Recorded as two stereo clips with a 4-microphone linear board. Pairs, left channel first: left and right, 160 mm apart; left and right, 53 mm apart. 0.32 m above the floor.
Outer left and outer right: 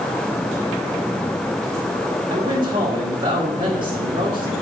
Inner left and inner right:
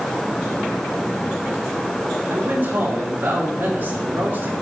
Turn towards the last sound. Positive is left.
turn(degrees=-35)  # may be behind; listen again after turning